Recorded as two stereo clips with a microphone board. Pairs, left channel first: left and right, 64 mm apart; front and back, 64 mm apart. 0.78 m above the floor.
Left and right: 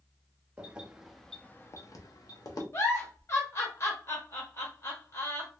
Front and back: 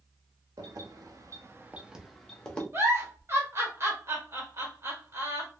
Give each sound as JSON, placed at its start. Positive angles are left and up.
{"t": 0.6, "sound": "keys jangling", "azimuth_deg": -160, "distance_m": 0.9}
{"t": 2.7, "sound": "a giggle", "azimuth_deg": 130, "distance_m": 1.1}